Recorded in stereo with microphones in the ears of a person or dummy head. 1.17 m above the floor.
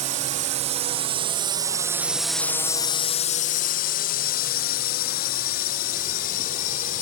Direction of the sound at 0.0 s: 35° right (ahead or behind).